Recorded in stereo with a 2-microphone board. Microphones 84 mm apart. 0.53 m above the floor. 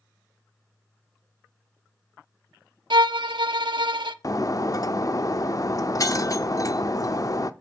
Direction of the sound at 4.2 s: 45° left (ahead or behind).